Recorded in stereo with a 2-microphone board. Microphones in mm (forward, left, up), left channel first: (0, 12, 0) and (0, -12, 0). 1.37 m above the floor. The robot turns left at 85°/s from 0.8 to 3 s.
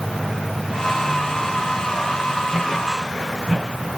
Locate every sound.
Only background noise.